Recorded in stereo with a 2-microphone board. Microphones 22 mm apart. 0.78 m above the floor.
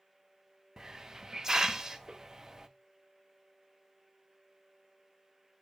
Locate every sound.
0.8 s a hiss: 30° right (ahead or behind), 0.5 m